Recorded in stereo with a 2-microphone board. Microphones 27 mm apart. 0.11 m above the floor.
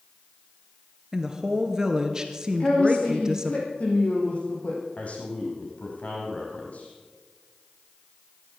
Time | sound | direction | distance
1.1 | a woman speaking | 25° right (ahead or behind) | 1.9 m
2.6 | a woman speaking | 45° left (ahead or behind) | 4.5 m
5.0 | a man speaking | 55° left (ahead or behind) | 5 m